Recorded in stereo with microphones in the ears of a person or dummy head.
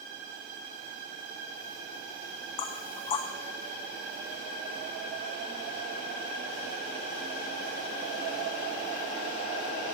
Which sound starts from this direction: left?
Knocking, at 2.6 s.